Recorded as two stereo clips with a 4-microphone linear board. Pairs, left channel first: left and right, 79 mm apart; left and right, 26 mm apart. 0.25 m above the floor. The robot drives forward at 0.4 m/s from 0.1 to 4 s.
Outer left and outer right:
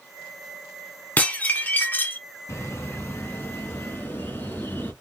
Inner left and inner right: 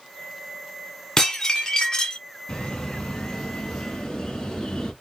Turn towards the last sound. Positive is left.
turn(degrees=25)  # may be behind; listen again after turning